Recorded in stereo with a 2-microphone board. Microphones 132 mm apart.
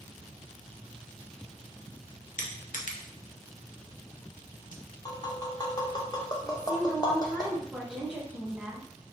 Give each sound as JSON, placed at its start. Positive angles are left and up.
{"t": 2.4, "sound": "crushing", "side_deg": 80, "distance_m": 0.6}
{"t": 5.0, "sound": "tapping", "side_deg": 30, "distance_m": 0.7}
{"t": 6.4, "sound": "a woman speaking", "side_deg": -10, "distance_m": 1.0}